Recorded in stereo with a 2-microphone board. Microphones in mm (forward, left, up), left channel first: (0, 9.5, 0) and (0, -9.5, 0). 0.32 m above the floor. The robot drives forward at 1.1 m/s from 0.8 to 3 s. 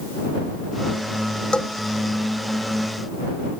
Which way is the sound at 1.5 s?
55° left (ahead or behind).